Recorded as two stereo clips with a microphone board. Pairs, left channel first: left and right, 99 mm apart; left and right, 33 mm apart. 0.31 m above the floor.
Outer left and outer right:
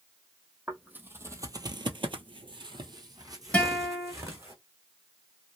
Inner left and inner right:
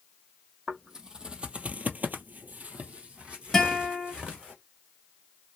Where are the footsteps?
15° right (ahead or behind), 0.9 m; by 4.5 s 30° right (ahead or behind), 1.6 m.